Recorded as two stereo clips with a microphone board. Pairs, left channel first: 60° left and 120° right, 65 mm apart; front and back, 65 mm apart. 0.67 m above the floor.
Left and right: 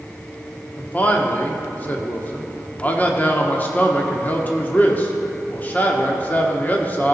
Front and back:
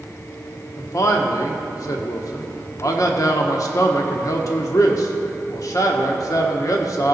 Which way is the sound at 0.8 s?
Straight ahead.